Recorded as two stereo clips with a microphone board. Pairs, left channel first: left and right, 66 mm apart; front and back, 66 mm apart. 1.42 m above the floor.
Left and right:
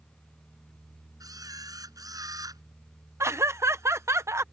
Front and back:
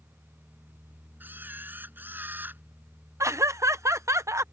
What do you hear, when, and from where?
1.2 s a camera shutter: 120° right
3.2 s laughter: 135° right